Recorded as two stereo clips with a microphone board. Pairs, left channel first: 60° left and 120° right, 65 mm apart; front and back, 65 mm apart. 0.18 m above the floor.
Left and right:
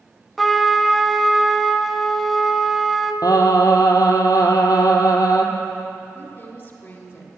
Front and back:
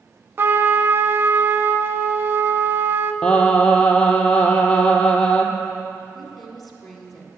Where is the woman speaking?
85° left, 1.3 m.